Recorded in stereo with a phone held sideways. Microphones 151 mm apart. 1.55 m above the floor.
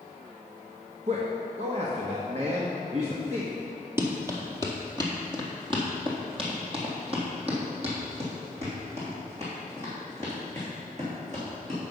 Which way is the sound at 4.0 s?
15° right (ahead or behind).